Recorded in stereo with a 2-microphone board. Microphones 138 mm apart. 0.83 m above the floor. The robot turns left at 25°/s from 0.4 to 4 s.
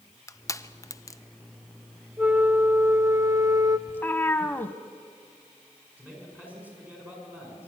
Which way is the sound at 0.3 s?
25° left (ahead or behind).